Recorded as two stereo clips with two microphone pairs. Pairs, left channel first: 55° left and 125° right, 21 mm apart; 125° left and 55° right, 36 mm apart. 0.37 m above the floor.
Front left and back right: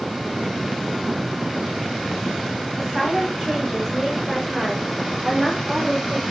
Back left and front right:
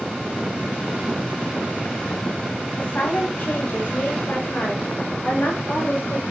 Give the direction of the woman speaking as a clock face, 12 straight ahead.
7 o'clock.